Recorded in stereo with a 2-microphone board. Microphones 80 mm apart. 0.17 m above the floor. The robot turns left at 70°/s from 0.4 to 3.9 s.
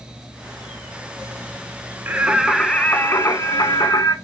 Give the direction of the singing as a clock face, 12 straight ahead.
5 o'clock.